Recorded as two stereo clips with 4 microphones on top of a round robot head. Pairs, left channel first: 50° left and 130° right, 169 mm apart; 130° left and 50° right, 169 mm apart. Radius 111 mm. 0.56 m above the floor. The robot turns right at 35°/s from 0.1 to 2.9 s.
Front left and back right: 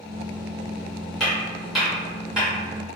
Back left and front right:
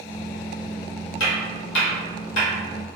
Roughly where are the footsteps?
Behind left.